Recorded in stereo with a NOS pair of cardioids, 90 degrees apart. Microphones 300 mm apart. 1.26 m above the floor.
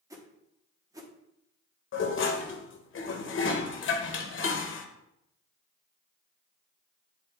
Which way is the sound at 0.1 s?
10° right.